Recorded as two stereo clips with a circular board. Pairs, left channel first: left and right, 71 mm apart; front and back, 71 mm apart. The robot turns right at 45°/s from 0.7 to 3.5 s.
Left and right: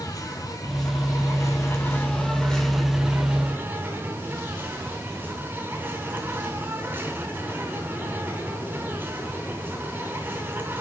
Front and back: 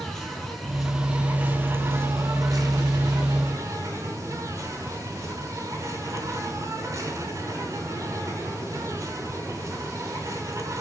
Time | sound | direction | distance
0.0 | an insect | 90° left | 4 m